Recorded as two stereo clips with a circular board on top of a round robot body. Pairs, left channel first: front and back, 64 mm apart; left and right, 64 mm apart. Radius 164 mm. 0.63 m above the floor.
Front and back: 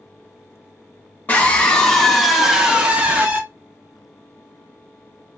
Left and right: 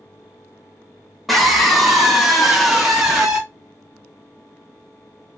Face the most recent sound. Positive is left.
turn(degrees=-170)